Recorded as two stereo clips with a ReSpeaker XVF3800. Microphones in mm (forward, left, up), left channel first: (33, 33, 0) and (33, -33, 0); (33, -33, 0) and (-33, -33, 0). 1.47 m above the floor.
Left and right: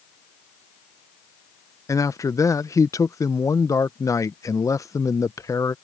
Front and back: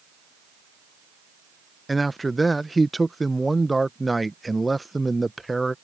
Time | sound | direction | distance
1.9 | a man speaking | 90° left | ?